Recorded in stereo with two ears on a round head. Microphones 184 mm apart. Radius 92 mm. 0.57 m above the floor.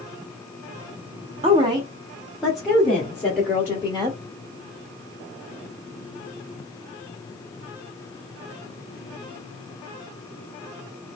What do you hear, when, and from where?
1.4 s a woman speaking: 30° right (ahead or behind), 0.8 m; by 4.2 s 15° left (ahead or behind), 2.0 m